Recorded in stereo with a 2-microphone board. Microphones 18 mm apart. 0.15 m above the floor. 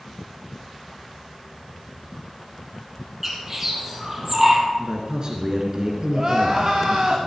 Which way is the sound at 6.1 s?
40° right (ahead or behind).